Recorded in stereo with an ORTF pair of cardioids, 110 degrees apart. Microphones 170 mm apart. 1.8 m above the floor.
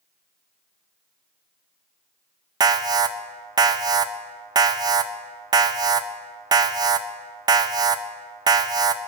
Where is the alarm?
20° right, 0.6 m.